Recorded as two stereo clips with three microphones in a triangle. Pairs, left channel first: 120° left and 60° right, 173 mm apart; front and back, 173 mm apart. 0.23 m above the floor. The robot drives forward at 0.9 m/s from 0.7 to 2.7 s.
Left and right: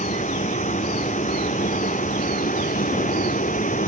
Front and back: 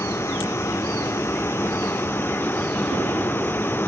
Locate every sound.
0.0 s a vehicle: 75° left; by 3.9 s 80° left